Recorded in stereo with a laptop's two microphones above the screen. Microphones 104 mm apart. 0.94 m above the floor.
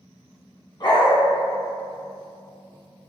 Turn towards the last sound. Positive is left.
turn(degrees=45)  # may be behind; listen again after turning